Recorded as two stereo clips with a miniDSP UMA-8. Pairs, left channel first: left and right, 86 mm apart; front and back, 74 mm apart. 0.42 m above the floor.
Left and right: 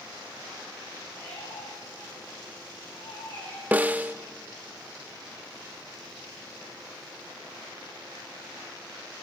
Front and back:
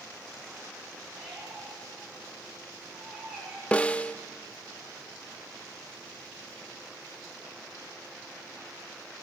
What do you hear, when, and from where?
1.1 s a squeak: 100° left, 8 m
3.7 s a snare drum: 45° right, 0.5 m